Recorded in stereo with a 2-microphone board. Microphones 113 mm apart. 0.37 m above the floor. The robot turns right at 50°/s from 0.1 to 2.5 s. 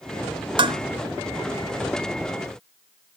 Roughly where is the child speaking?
I don't hear a child speaking.